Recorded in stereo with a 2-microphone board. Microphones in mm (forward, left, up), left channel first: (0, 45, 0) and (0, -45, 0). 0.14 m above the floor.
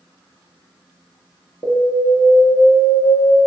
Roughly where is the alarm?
Left.